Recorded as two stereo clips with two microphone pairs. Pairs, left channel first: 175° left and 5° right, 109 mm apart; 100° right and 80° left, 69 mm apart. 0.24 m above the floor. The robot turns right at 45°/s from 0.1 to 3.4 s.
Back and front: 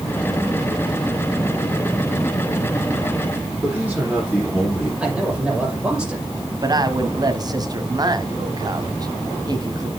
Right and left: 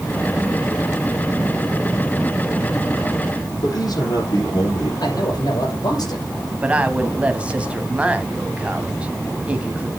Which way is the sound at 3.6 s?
90° right.